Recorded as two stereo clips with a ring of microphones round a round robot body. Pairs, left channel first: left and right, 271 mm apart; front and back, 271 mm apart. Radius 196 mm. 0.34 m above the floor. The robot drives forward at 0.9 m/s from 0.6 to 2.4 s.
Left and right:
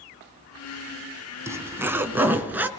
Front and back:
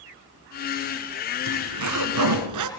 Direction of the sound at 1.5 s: 170° right.